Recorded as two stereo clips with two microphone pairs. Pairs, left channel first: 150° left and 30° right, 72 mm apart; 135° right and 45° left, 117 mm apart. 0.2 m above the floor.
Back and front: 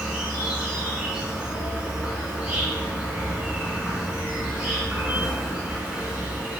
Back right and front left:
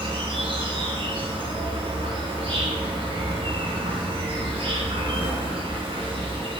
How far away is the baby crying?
I don't hear a baby crying.